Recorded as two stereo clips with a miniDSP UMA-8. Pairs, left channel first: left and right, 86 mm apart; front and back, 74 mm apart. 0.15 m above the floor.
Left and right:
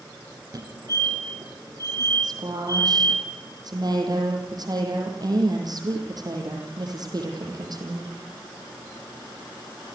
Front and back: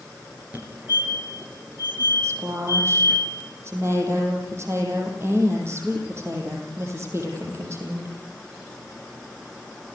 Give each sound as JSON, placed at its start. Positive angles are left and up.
{"t": 0.5, "sound": "a fire alarm", "azimuth_deg": -115, "distance_m": 4.5}
{"t": 2.2, "sound": "a woman speaking", "azimuth_deg": -130, "distance_m": 6.0}